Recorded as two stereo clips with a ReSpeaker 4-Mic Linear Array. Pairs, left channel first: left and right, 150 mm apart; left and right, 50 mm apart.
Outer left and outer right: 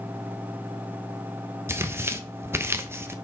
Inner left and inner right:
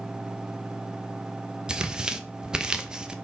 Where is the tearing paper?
15° right (ahead or behind), 0.7 m.